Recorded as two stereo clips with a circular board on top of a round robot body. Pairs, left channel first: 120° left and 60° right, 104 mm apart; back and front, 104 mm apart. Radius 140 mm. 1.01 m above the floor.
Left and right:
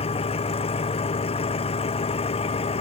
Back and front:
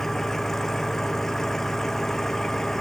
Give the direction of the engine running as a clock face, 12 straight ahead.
9 o'clock.